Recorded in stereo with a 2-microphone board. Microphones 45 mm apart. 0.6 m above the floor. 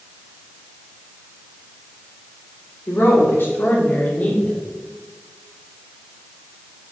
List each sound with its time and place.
2.9 s a woman speaking: 60° left (ahead or behind), 2 m; by 4.6 s 25° left (ahead or behind), 1.1 m